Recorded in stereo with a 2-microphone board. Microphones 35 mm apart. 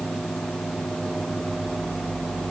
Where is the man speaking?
I don't hear a man speaking.